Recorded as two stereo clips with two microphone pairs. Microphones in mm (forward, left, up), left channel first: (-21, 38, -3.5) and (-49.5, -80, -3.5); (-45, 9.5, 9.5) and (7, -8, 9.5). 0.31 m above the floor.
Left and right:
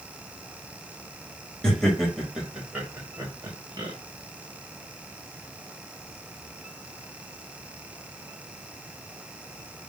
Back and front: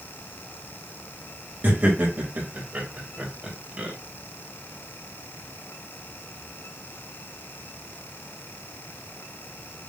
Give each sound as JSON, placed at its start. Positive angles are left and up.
{"t": 1.6, "sound": "laughter", "azimuth_deg": -5, "distance_m": 1.8}